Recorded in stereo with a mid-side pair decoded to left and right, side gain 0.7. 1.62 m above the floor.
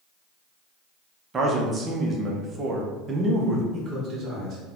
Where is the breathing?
No breathing in this recording.